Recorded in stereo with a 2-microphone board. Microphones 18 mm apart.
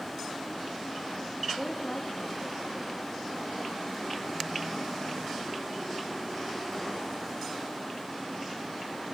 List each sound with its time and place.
1.6 s a woman speaking: 75° left (ahead or behind), 3 m